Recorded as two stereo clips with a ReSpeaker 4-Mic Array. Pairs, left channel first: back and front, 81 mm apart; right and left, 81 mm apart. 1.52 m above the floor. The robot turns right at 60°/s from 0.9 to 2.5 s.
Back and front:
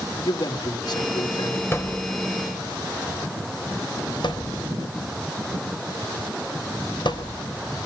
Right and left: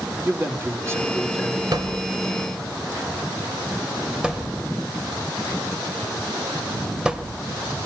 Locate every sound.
0.2 s a man speaking: 145° left, 3.5 m; by 1.6 s 170° right, 3.5 m
1.7 s a thud: 120° left, 3.5 m; by 7.4 s 170° left, 3.5 m